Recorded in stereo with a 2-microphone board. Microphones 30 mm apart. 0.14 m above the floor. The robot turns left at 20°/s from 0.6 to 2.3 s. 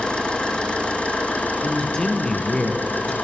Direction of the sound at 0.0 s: 140° left.